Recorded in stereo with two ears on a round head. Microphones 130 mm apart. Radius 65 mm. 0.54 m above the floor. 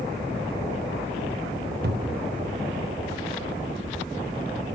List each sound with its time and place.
1.8 s a cupboard door: 70° right (ahead or behind), 0.7 m